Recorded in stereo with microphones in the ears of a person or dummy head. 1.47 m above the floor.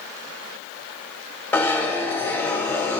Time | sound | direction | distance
1.5 | a zipper | 15° left (ahead or behind) | 1.3 m